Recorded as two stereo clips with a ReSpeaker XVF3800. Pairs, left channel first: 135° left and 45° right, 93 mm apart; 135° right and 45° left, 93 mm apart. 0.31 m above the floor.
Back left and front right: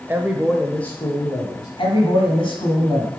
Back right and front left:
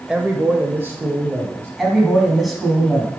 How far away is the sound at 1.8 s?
About 2 m.